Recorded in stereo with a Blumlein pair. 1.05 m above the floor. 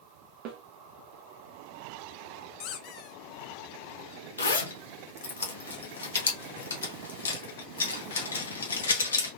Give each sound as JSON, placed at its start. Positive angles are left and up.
{"t": 0.5, "sound": "a snare drum", "azimuth_deg": -40, "distance_m": 0.9}
{"t": 2.6, "sound": "a squeak", "azimuth_deg": 40, "distance_m": 0.6}
{"t": 4.4, "sound": "a zipper", "azimuth_deg": 70, "distance_m": 1.2}